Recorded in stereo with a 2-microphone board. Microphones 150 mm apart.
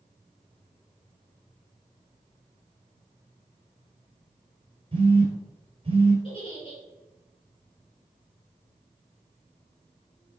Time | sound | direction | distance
4.9 | a phone buzzing | 40° right (ahead or behind) | 3 m
6.2 | a giggle | 35° left (ahead or behind) | 4 m